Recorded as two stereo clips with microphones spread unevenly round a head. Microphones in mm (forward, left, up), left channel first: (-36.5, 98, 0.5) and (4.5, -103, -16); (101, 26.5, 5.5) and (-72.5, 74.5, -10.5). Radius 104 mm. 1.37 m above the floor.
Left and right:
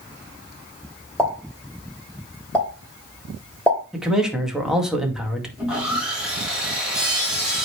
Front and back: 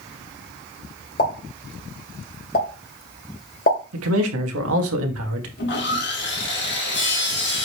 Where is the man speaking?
165° right, 2 m.